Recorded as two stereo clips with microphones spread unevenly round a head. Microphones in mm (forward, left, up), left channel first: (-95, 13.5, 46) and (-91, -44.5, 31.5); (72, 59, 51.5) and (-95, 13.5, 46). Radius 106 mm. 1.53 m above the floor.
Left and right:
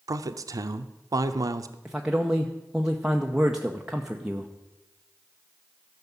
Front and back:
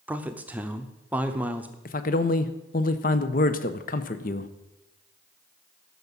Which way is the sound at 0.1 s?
85° right.